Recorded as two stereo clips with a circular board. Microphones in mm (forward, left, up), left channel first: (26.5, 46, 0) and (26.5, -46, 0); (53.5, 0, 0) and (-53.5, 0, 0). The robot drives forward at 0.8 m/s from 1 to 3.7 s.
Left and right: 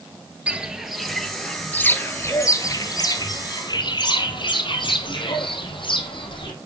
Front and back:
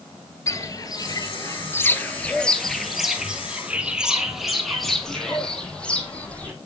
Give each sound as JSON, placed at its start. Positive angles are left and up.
{"t": 0.5, "sound": "footsteps", "azimuth_deg": -20, "distance_m": 1.2}